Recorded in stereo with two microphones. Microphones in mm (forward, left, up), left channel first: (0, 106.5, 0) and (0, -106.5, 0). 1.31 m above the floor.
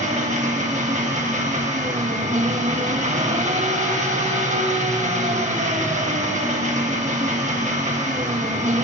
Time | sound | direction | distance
0.0 | an engine running | 35° right (ahead or behind) | 1.1 m